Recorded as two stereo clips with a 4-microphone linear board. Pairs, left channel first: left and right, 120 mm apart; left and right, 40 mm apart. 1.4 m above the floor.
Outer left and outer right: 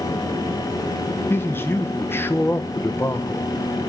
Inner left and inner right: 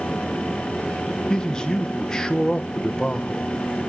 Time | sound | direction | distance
1.3 | a man speaking | 20° left (ahead or behind) | 0.9 m